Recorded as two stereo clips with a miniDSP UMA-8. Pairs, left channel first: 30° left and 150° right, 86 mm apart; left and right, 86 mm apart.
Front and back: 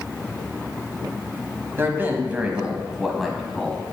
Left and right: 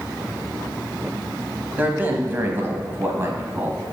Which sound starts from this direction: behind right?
A man speaking, at 1.8 s.